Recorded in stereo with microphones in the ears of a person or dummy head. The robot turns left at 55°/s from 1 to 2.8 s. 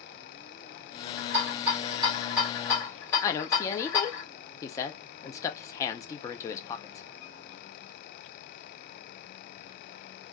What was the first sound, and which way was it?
A rattle, 75° right (ahead or behind).